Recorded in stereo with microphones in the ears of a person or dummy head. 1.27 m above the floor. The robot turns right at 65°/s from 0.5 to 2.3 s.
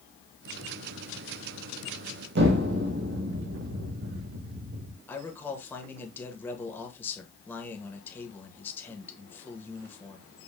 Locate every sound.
2.4 s an explosion: 60° right (ahead or behind), 1.0 m
5.1 s a man speaking: 10° left (ahead or behind), 1.4 m